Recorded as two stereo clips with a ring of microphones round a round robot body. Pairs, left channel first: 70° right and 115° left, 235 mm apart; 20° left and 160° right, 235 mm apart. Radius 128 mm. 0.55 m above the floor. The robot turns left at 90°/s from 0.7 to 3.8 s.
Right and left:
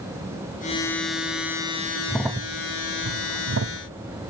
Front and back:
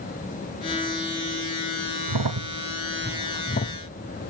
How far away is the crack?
About 0.7 m.